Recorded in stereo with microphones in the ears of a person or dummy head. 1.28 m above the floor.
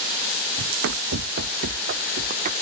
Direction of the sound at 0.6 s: 70° right (ahead or behind).